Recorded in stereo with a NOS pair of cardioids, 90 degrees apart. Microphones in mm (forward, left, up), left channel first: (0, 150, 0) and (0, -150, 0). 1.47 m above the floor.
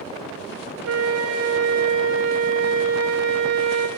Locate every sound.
0.8 s a flute: 60° right, 1.1 m